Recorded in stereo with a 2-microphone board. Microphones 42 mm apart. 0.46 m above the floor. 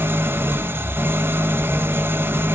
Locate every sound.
0.0 s an engine running: 70° right (ahead or behind), 0.9 m